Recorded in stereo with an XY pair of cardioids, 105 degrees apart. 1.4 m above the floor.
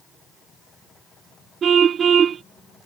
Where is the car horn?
50° right.